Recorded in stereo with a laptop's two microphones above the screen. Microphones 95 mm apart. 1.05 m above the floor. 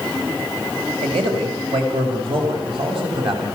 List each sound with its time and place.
1.0 s a man speaking: 75° right (ahead or behind), 6.5 m; by 3.6 s 65° right (ahead or behind), 7 m